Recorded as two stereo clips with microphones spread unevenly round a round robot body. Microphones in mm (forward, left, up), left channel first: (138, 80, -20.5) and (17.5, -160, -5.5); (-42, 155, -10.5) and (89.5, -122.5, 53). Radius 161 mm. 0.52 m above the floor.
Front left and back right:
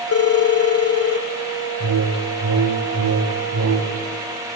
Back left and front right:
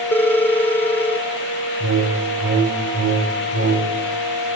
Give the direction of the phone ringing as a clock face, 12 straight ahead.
11 o'clock.